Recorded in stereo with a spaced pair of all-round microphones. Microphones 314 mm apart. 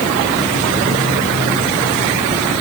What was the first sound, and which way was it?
Only background noise.